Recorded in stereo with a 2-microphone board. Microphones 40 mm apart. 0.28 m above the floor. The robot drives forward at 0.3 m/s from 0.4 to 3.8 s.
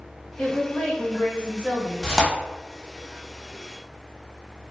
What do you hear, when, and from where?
0.4 s a woman speaking: 40° left (ahead or behind), 1.6 m
2.0 s tearing paper: centre (ahead or behind), 0.9 m